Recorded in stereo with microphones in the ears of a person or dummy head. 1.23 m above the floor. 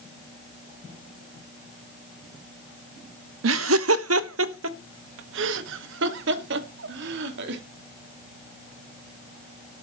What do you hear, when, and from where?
3.4 s laughter: 70° right (ahead or behind), 0.7 m; by 7.6 s 75° right (ahead or behind), 2.5 m